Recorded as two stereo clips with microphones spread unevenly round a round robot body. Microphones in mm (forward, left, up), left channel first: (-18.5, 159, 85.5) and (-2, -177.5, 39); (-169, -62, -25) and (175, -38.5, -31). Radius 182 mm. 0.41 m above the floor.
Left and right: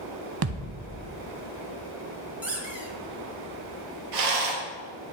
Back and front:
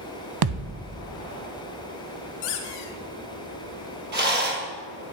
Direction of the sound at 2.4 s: 170° right.